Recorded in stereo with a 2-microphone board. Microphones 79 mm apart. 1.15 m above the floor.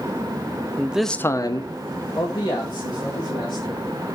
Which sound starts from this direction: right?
A man speaking, at 0.8 s.